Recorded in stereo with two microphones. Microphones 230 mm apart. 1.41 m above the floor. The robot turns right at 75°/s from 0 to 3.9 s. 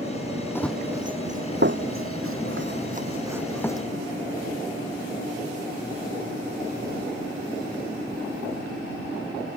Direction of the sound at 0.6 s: 10° left (ahead or behind).